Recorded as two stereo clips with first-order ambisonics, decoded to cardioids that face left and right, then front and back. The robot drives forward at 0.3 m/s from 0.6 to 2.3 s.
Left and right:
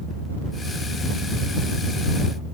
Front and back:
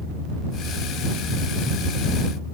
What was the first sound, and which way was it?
Only background noise.